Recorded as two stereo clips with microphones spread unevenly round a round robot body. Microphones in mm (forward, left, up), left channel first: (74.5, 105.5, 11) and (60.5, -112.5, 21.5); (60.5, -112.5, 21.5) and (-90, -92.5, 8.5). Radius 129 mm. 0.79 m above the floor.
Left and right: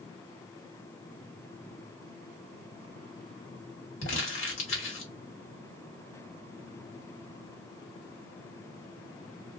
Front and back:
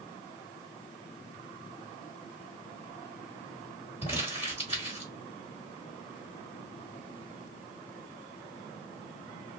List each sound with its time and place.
4.0 s crumpling: 60° left, 1.4 m